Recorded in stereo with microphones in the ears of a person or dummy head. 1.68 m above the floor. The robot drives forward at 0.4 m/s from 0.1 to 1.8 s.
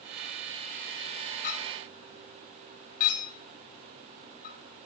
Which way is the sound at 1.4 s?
45° left (ahead or behind).